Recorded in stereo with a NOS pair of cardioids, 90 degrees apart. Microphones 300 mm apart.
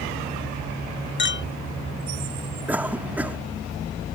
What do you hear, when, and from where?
1.2 s a clink: 40° left
2.7 s a cough: 5° right